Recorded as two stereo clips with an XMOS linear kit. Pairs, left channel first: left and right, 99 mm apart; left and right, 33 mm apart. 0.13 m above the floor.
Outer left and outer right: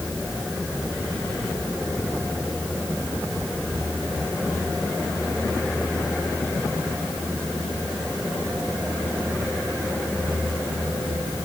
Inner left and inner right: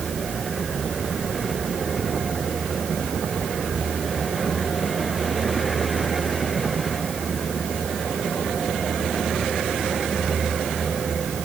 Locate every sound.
Only background noise.